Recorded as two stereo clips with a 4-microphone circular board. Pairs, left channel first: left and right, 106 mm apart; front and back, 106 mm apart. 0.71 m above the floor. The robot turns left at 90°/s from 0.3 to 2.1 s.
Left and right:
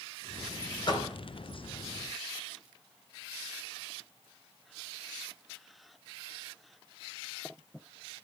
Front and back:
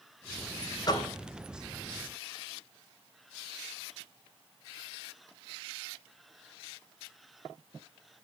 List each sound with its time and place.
0.9 s a door slam: 50° left, 3 m; by 1.1 s 25° left, 3 m